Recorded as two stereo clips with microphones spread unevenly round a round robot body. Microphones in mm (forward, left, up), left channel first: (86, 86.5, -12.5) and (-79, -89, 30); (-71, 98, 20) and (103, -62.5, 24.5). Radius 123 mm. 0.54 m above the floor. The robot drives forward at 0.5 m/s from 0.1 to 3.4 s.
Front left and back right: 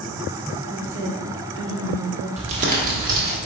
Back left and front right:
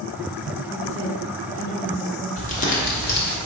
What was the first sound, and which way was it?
A woman speaking, 165° right.